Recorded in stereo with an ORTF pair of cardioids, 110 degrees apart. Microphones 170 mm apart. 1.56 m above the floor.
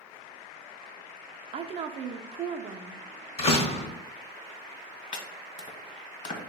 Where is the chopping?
45° left, 1.3 m.